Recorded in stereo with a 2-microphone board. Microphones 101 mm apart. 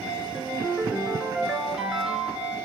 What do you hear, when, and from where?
0.3 s a ringtone: 10° right (ahead or behind), 2 m